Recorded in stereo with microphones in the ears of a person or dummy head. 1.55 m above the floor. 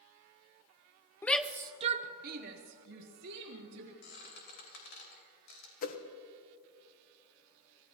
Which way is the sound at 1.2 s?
10° left (ahead or behind).